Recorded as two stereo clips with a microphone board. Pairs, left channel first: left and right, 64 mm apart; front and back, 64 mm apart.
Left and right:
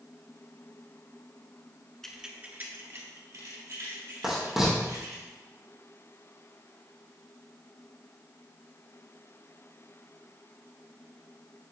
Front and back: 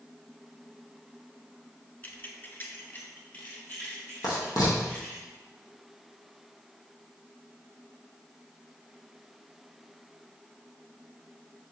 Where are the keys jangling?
15° left, 0.8 m; by 5.2 s 65° right, 4.5 m.